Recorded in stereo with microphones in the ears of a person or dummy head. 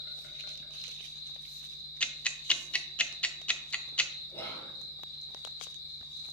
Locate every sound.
0.0 s an insect: 55° left (ahead or behind), 1.2 m
2.0 s ticking: 5° left (ahead or behind), 0.5 m
4.3 s whispering: 10° left (ahead or behind), 1.7 m